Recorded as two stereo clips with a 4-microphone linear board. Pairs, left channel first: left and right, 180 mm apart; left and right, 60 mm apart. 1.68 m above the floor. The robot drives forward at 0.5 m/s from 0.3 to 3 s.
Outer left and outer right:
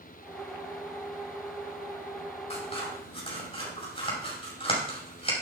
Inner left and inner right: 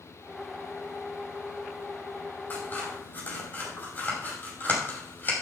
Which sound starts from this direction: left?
Scissors, at 2.5 s.